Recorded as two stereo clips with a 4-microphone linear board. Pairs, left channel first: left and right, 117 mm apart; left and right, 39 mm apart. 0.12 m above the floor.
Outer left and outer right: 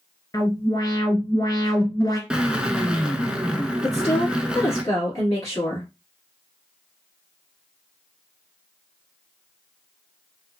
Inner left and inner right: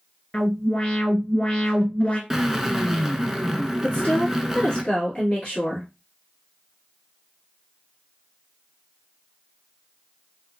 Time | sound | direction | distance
0.3 | an alarm | 30° left (ahead or behind) | 1.0 m
2.3 | a drill | 10° right (ahead or behind) | 0.6 m
3.8 | a woman speaking | 30° left (ahead or behind) | 1.8 m